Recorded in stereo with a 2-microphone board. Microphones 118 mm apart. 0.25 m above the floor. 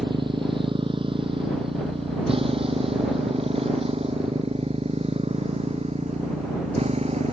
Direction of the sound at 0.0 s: 45° right (ahead or behind).